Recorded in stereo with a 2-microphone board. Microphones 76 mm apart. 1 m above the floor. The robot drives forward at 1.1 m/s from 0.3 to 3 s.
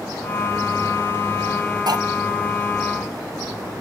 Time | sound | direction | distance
1.9 | cutlery clinking | 65° right (ahead or behind) | 1.0 m